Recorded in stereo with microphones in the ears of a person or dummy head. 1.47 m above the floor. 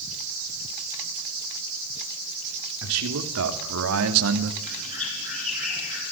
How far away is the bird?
About 7.5 m.